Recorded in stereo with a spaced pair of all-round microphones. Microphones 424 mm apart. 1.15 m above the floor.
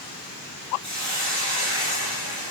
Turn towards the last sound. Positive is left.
turn(degrees=-75)  # may be behind; listen again after turning